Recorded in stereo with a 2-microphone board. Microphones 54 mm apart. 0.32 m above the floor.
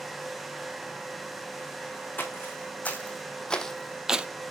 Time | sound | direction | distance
2.2 | footsteps | 35° left (ahead or behind) | 1.6 m